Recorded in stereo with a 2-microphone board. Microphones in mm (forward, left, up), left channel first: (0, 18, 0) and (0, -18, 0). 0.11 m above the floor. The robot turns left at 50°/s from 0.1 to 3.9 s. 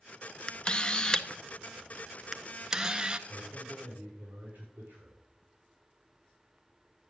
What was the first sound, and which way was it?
A camera shutter, 30° left (ahead or behind).